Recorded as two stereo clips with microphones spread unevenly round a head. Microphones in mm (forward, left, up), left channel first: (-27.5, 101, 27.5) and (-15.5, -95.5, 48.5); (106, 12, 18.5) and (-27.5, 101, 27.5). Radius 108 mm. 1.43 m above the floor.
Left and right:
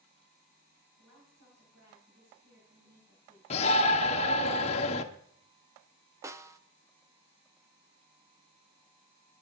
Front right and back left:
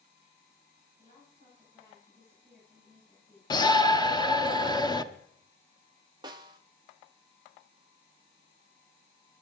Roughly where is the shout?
Ahead left.